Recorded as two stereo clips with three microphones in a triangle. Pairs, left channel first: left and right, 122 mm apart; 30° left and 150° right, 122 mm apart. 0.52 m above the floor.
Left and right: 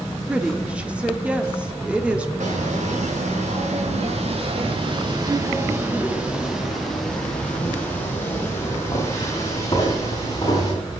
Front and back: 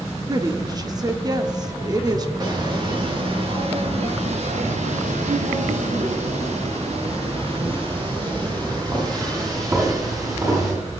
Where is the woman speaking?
165° right, 1.2 m.